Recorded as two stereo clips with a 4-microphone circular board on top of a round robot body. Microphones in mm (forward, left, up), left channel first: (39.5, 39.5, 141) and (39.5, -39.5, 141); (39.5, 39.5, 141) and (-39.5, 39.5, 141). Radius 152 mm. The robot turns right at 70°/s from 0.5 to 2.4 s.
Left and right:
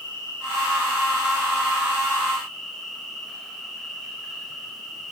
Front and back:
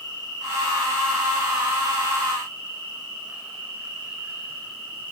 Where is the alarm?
No alarm in this recording.